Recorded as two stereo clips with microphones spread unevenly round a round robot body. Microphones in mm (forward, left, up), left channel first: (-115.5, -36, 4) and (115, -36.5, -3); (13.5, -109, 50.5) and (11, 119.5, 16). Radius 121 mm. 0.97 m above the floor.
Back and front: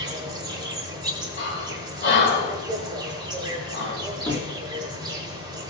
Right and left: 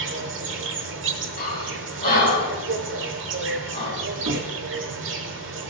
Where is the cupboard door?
110° left, 1.7 m.